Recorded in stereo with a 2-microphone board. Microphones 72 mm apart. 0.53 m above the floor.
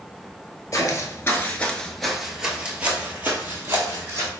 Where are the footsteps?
45° left (ahead or behind), 0.7 m; by 4.3 s 30° right (ahead or behind), 1.5 m.